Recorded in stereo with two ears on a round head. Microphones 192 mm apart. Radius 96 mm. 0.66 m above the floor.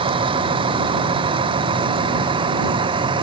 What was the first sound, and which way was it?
A vehicle, 25° right (ahead or behind).